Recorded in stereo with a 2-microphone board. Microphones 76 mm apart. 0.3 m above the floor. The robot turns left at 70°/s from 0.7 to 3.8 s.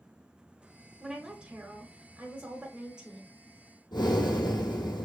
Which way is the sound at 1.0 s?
5° right (ahead or behind).